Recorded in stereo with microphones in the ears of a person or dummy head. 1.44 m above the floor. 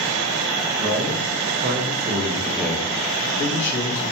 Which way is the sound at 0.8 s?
55° right (ahead or behind).